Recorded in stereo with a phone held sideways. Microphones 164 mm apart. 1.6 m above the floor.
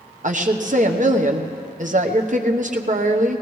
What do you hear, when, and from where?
0.2 s a woman speaking: 50° right (ahead or behind), 1.0 m